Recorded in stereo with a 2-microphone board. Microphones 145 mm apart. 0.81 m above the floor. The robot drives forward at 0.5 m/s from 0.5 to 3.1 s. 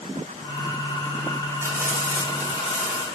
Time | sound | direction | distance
1.6 | frying | 15° right (ahead or behind) | 1.7 m